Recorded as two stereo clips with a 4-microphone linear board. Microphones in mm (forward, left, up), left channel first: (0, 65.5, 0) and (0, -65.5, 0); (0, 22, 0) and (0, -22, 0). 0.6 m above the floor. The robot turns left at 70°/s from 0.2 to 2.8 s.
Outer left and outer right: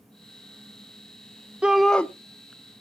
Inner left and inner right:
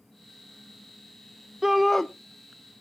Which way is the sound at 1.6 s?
170° right.